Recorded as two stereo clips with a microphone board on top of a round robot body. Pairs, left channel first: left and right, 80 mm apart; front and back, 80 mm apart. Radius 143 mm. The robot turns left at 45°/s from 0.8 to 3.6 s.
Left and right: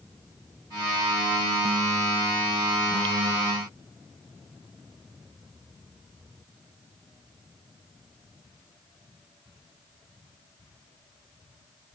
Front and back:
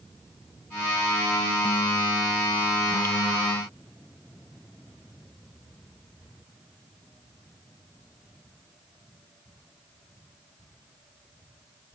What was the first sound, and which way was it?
Only background noise.